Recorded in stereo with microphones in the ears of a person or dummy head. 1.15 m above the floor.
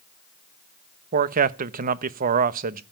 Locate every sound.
1.1 s a man speaking: 50° right (ahead or behind), 1.0 m